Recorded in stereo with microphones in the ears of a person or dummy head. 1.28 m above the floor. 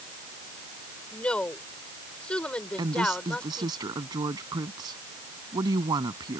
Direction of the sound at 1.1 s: 5° left (ahead or behind).